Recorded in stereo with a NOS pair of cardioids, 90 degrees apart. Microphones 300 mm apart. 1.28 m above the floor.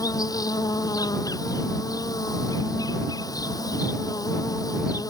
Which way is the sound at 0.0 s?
10° left.